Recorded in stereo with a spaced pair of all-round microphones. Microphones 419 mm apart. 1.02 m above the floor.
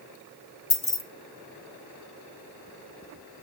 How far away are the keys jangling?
About 1.0 m.